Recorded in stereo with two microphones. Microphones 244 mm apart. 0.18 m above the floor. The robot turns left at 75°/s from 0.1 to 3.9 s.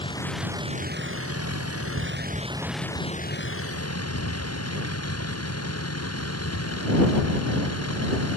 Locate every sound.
0.0 s a vehicle: 20° left; by 8.4 s 95° left